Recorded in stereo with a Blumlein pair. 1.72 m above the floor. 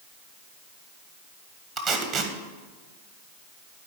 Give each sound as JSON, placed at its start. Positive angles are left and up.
{"t": 1.8, "sound": "tape being pulled", "azimuth_deg": -35, "distance_m": 1.4}